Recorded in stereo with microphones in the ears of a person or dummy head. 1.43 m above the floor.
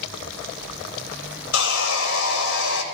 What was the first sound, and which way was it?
Sawing, 65° left (ahead or behind).